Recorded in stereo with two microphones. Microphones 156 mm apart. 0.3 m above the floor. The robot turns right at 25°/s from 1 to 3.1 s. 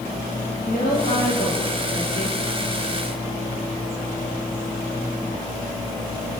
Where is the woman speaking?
75° left, 7 m; by 2.4 s 110° left, 7 m.